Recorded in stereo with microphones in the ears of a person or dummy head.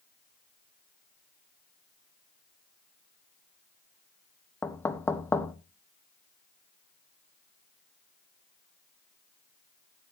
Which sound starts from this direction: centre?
Knocking, at 4.6 s.